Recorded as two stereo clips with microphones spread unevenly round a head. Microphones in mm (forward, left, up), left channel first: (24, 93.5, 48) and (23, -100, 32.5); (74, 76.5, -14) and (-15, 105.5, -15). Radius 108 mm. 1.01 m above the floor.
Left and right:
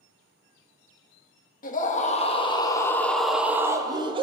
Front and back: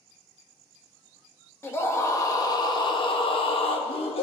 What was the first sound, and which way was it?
A scream, 45° left.